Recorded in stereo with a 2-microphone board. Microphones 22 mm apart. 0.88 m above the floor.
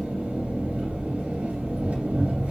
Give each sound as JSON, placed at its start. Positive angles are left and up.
{"t": 0.0, "sound": "an engine running", "side_deg": -80, "distance_m": 2.5}